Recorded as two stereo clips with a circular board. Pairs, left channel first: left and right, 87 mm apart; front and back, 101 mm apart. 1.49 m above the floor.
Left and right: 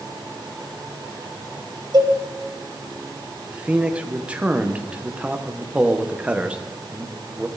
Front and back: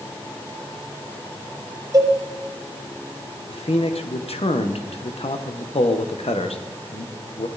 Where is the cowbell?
125° right, 1.4 m.